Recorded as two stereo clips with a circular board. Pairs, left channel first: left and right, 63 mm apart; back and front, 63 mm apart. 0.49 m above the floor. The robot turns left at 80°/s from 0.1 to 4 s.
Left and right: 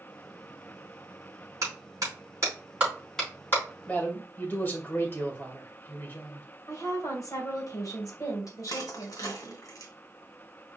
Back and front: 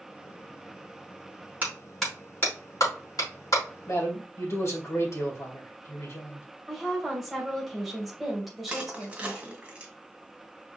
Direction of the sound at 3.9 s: 155° left.